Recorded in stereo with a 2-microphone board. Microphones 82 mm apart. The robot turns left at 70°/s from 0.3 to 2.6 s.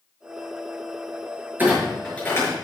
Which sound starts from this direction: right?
A clunk, at 1.6 s.